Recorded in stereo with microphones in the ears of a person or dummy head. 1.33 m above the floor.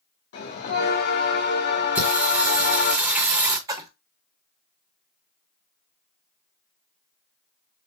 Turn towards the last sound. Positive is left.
turn(degrees=-10)  # may be behind; listen again after turning